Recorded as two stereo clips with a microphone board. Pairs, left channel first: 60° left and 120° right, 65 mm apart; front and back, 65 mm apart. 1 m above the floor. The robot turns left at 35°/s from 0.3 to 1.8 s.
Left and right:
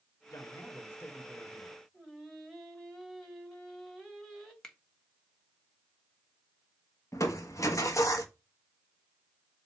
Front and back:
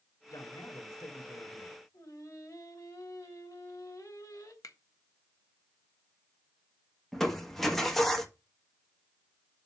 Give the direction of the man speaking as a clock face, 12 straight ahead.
11 o'clock.